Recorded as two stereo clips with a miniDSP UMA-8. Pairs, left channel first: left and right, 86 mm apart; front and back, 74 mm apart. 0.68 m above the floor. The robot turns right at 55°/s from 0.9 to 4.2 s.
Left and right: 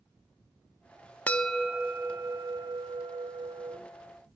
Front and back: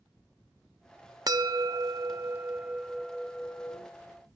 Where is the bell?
160° left, 0.5 m; by 3.8 s 60° right, 0.5 m.